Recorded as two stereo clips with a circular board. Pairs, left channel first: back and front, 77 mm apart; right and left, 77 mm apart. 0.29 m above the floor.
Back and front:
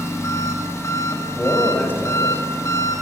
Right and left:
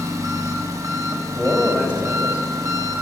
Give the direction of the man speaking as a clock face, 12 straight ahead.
7 o'clock.